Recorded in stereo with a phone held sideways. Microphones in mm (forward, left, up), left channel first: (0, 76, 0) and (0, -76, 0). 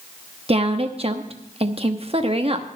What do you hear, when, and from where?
0.5 s a woman speaking: 40° right (ahead or behind), 1.0 m